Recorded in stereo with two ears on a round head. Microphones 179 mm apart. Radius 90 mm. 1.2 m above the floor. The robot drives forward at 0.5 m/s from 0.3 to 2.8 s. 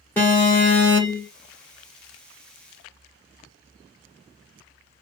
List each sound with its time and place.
0.2 s an alarm: 10° left (ahead or behind), 1.7 m; by 1.3 s 15° left (ahead or behind), 1.4 m